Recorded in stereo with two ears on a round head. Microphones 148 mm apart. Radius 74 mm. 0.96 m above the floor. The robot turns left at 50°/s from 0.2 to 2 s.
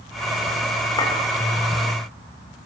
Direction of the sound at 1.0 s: 25° left (ahead or behind).